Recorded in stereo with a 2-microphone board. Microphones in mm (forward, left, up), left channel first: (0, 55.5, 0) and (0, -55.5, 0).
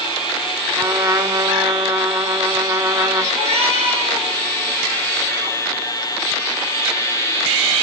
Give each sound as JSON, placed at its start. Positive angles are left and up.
{"t": 0.8, "sound": "a trumpet", "side_deg": -30, "distance_m": 0.7}
{"t": 3.3, "sound": "a cat meowing", "side_deg": -70, "distance_m": 7.0}